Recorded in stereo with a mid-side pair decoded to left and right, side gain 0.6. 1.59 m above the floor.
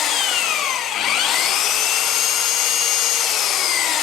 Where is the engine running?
55° left, 0.9 m.